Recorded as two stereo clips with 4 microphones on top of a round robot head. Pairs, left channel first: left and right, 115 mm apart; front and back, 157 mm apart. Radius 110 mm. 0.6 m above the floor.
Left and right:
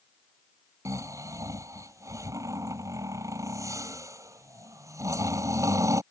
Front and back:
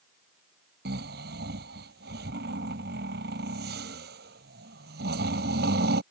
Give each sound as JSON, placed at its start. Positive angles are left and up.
{"t": 0.8, "sound": "snoring", "azimuth_deg": -150}